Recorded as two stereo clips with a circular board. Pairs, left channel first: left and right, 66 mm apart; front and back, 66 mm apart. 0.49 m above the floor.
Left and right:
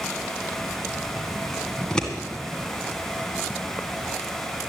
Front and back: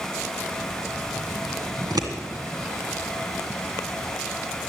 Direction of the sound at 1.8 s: 170° left.